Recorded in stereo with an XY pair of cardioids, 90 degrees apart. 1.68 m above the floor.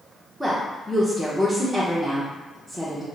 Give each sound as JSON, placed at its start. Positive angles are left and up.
{"t": 0.4, "sound": "a woman speaking", "azimuth_deg": 0, "distance_m": 0.8}